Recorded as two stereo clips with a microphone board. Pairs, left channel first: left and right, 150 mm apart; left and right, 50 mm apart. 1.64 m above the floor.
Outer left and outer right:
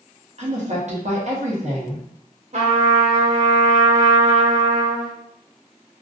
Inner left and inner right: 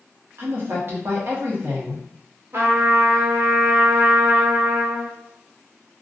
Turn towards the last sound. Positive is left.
turn(degrees=-50)  # may be behind; listen again after turning